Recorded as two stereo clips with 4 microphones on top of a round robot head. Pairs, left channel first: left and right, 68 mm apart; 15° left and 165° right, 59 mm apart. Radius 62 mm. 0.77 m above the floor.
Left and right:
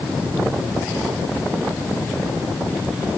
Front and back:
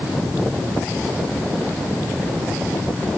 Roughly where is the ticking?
I don't hear ticking.